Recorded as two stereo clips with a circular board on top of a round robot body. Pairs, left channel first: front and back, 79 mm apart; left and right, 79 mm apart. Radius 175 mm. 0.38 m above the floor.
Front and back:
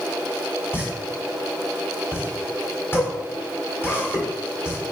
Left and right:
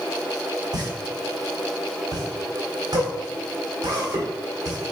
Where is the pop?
55° right, 1.9 m.